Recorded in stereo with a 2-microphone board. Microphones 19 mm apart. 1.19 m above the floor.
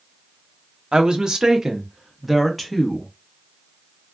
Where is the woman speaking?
60° right (ahead or behind), 0.9 m; by 3.1 s 5° left (ahead or behind), 1.3 m.